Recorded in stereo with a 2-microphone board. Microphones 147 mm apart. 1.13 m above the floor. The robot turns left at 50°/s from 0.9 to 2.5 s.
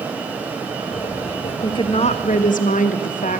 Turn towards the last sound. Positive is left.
turn(degrees=105)